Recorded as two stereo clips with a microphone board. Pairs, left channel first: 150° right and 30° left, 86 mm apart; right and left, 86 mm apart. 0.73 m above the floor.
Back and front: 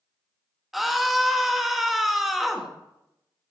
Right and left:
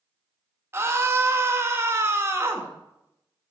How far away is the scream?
About 1.1 m.